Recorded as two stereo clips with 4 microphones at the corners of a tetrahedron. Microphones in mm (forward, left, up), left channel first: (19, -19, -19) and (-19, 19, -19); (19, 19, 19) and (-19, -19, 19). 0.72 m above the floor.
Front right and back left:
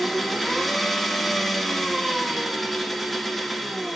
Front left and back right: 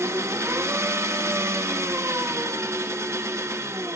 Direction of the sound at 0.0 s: 130° right.